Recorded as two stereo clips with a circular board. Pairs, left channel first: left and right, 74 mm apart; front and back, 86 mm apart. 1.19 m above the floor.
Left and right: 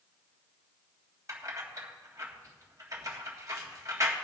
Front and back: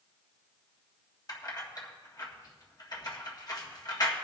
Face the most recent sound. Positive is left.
turn(degrees=-40)